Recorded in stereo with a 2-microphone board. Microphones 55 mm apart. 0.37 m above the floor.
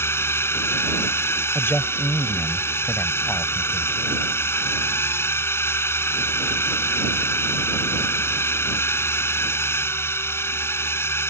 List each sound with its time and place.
0.0 s a drone: 50° left (ahead or behind)
1.6 s a man speaking: 50° left (ahead or behind)